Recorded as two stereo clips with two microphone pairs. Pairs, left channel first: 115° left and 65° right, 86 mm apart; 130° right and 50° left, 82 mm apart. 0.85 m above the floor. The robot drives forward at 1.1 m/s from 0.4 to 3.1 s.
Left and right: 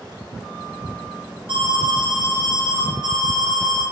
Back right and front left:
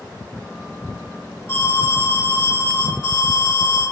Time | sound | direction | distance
1.5 | an alarm | 70° right | 6.5 m